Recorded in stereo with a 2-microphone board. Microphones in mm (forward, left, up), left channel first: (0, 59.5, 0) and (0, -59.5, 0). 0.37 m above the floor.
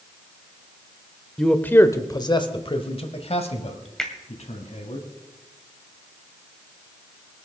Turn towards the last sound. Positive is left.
turn(degrees=5)  # may be behind; listen again after turning